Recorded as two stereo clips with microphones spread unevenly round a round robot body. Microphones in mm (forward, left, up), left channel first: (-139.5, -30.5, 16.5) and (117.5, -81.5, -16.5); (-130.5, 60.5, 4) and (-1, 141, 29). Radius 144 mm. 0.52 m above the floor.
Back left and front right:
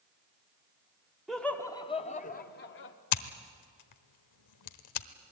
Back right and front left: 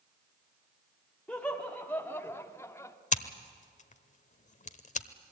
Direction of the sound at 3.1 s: Straight behind.